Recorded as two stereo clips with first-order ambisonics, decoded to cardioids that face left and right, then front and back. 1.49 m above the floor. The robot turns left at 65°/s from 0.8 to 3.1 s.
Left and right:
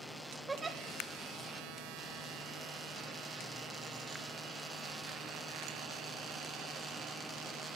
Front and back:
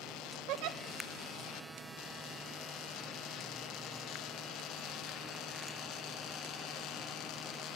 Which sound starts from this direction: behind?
A giggle, at 0.5 s.